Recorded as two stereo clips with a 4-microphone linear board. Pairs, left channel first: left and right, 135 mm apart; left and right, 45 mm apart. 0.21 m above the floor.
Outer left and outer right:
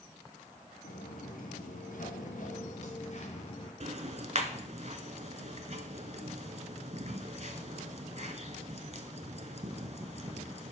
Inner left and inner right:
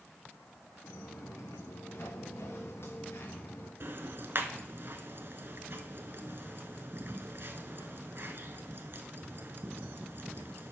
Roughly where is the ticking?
Right.